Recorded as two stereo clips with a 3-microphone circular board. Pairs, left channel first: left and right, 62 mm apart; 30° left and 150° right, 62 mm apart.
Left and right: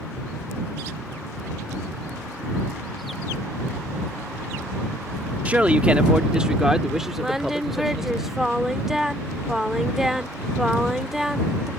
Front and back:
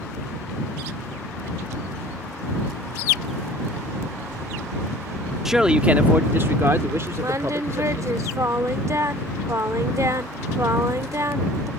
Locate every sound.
5.5 s a man speaking: 70° right; by 8.2 s straight behind
7.2 s singing: 175° right